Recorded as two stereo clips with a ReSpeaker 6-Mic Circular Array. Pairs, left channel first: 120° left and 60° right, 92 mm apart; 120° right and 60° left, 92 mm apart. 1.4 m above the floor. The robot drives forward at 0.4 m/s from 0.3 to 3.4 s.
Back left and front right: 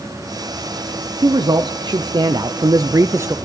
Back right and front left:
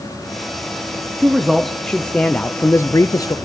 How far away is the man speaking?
About 0.9 m.